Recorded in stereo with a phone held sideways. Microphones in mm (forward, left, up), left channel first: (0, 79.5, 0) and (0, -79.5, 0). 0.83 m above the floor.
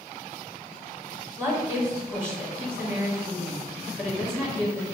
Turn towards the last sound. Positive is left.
turn(degrees=-15)  # may be behind; listen again after turning